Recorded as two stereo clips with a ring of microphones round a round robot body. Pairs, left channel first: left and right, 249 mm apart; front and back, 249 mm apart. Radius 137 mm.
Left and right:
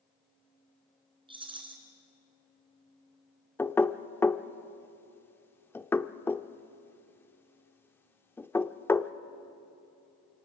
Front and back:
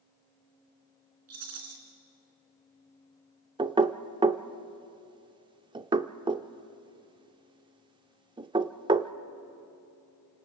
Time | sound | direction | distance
1.3 | a rattle | 160° right | 3.5 m
3.6 | knocking | 155° left | 0.6 m